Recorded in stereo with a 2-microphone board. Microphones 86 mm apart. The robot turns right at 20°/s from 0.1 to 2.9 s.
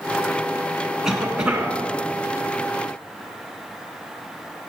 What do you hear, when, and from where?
1.0 s a cough: 5° right (ahead or behind), 1.9 m; by 1.8 s 15° right (ahead or behind), 1.9 m